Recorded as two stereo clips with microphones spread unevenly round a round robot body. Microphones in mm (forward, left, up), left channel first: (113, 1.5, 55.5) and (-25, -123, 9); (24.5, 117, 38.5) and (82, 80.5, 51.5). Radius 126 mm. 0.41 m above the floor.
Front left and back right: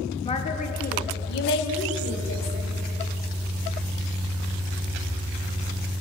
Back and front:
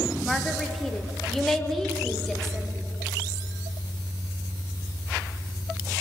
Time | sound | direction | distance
0.2 | a woman speaking | 95° left | 1.2 m